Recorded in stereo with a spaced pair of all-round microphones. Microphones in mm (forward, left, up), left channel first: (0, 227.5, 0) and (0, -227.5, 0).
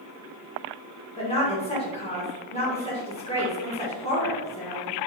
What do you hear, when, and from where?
1.2 s a woman speaking: 15° left (ahead or behind), 1.6 m